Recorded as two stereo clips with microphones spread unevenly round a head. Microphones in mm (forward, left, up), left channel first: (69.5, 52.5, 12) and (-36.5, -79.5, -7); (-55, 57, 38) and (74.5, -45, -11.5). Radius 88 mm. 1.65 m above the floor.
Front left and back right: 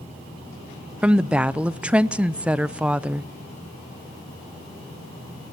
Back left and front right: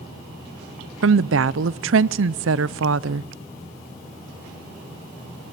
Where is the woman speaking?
40° right, 0.5 m.